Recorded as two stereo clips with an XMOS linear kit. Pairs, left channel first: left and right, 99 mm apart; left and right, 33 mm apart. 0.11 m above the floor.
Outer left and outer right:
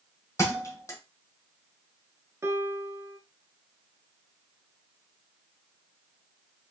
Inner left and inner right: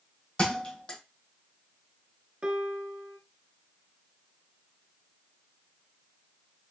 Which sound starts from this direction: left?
A thud, at 0.4 s.